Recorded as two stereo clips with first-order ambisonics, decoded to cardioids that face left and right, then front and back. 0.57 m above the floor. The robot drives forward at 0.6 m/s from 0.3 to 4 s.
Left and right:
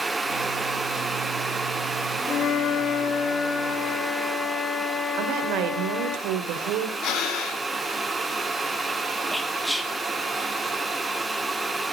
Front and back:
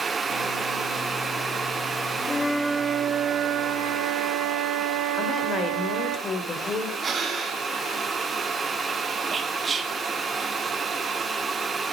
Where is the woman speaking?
70° right, 1.9 m.